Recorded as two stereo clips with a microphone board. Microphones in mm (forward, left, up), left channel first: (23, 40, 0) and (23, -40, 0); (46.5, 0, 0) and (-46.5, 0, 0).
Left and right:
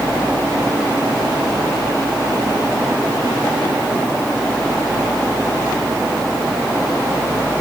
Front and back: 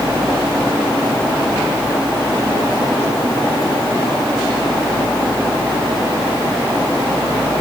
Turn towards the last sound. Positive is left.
No sound to turn to.